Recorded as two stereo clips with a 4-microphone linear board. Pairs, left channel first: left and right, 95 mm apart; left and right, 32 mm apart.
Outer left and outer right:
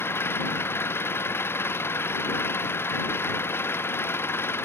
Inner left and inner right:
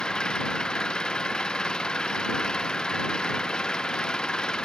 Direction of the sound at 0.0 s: 25° left (ahead or behind).